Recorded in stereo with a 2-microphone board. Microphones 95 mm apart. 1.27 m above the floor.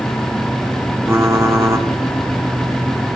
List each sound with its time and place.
1.1 s typing on a keyboard: 25° right (ahead or behind), 1.3 m